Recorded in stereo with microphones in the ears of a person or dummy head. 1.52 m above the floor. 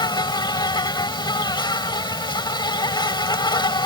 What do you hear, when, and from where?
0.0 s an insect: 25° left (ahead or behind)